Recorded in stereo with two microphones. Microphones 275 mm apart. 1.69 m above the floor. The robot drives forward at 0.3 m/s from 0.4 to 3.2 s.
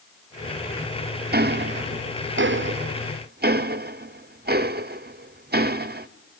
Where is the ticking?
35° right (ahead or behind), 0.5 m.